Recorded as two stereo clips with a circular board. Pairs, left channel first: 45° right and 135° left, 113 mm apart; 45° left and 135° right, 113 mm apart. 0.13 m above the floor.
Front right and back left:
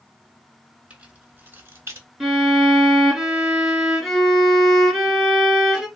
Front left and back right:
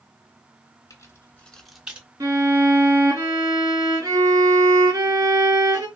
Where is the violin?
135° right, 1.6 m.